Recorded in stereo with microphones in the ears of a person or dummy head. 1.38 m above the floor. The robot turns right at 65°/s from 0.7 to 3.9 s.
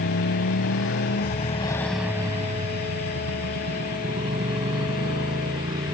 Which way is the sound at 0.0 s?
75° left (ahead or behind).